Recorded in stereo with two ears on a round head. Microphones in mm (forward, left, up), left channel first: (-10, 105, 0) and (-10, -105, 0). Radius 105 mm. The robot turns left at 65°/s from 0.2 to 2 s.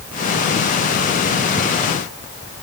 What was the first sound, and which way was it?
Only background noise.